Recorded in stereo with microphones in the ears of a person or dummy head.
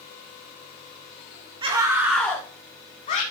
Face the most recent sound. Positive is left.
turn(degrees=45)  # may be behind; listen again after turning